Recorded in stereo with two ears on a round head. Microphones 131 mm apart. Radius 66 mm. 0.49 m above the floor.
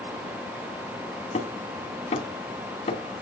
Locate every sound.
1.3 s hammering: 45° left (ahead or behind), 3.5 m